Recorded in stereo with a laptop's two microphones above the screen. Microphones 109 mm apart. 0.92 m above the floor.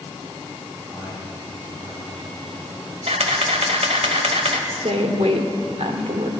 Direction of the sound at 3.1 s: 80° right.